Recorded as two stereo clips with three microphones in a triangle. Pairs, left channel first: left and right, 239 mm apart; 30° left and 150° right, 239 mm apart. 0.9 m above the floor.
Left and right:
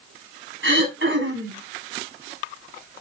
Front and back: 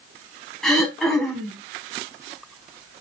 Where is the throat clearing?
60° right, 4 m.